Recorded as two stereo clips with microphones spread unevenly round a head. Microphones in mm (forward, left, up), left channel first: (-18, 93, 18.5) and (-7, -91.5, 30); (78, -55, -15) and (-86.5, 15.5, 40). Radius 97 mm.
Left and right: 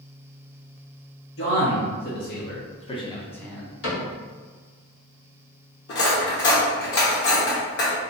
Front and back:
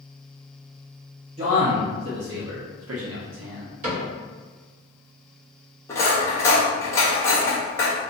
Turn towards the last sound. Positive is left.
turn(degrees=55)